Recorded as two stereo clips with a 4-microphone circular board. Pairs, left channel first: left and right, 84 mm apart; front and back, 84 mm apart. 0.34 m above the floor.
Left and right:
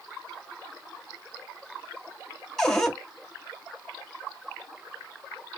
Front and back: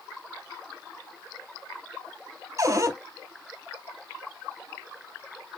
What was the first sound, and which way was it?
A cupboard door, 170° left.